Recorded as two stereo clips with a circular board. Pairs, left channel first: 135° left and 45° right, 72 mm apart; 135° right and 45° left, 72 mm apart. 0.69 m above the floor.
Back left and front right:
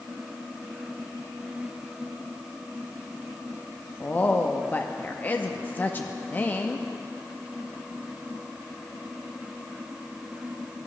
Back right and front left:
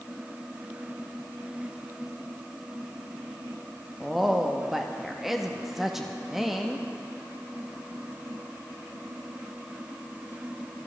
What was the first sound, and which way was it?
A woman speaking, 120° left.